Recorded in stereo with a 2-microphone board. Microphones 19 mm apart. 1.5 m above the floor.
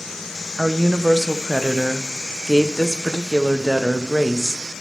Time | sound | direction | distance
0.6 | a woman speaking | centre (ahead or behind) | 0.8 m